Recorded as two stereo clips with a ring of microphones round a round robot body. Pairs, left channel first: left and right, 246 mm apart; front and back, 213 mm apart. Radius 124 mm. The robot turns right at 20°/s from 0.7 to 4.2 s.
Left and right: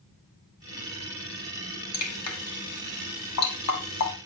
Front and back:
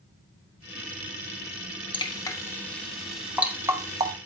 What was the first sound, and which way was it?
Dripping, 65° left.